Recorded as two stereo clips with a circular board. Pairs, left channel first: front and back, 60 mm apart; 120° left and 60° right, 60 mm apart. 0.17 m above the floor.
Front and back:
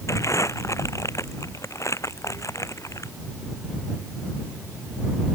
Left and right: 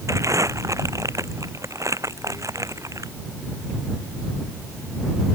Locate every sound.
0.1 s crumpling: 35° right